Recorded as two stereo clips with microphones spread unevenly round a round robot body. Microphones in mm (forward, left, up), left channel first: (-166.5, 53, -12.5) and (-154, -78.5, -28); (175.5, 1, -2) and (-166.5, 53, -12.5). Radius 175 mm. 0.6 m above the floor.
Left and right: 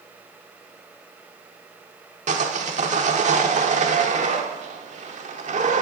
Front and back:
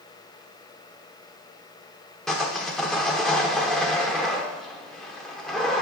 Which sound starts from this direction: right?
Sawing, at 2.3 s.